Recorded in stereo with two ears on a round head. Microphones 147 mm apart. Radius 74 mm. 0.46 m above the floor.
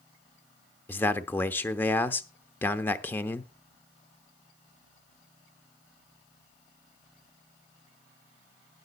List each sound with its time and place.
0.9 s a man speaking: 10° left (ahead or behind), 0.9 m